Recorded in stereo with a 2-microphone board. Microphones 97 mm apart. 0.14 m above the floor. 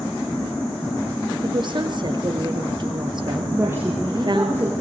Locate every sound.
1.4 s a woman speaking: 50° right (ahead or behind), 3 m
3.5 s a woman speaking: 25° right (ahead or behind), 4.5 m